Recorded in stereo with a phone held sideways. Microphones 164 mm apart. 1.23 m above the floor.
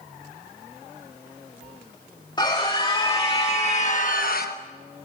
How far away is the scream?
About 2.5 m.